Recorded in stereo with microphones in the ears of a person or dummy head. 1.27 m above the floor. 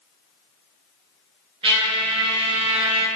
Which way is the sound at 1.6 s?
30° right (ahead or behind).